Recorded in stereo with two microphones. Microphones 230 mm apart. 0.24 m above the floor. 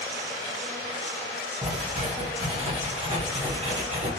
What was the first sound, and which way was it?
Writing, 30° right (ahead or behind).